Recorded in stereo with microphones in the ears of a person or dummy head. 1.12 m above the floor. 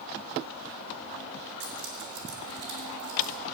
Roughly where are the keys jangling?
Right.